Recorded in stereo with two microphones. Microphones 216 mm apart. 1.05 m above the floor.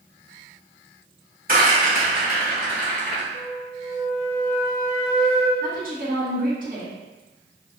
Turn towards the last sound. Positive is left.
turn(degrees=-40)  # may be behind; listen again after turning